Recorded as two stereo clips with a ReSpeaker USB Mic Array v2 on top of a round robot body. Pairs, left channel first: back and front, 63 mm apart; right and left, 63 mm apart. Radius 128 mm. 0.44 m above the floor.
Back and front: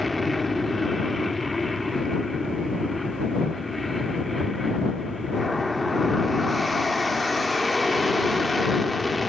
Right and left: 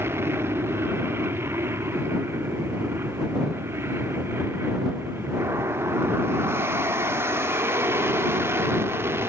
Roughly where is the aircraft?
Left.